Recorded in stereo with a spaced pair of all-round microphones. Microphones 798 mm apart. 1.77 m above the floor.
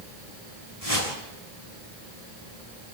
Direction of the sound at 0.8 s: 45° left (ahead or behind).